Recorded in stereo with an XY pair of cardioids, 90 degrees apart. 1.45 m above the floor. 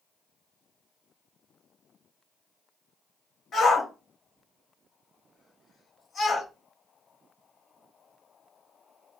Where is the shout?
55° left, 1.0 m.